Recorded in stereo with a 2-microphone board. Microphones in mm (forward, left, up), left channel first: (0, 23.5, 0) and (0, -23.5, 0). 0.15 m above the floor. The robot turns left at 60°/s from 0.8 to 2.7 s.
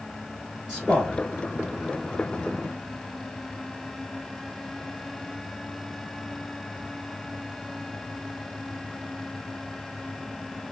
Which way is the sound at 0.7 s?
5° right (ahead or behind).